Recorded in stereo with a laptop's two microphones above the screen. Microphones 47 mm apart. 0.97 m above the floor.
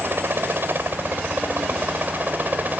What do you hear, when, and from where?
0.0 s a helicopter: 55° right (ahead or behind); by 2.8 s 40° right (ahead or behind)